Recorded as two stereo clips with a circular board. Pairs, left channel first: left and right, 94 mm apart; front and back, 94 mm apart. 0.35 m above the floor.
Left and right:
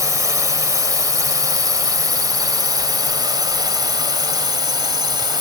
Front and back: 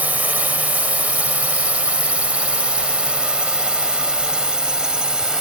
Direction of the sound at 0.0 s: 115° right.